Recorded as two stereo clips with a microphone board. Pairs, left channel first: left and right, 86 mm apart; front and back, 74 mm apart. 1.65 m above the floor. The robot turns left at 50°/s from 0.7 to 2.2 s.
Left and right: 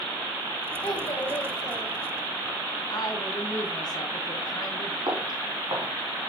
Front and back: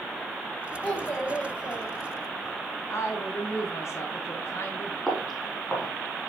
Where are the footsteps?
85° right, 3 m.